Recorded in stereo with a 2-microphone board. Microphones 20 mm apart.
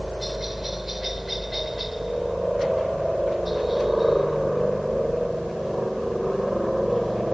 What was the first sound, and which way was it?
A helicopter, 15° right (ahead or behind).